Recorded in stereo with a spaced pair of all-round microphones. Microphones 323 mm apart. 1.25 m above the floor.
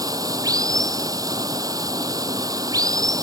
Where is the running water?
10° right (ahead or behind).